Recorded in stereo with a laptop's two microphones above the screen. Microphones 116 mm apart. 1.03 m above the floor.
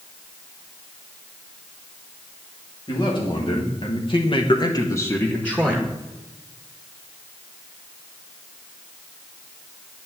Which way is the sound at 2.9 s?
45° left (ahead or behind).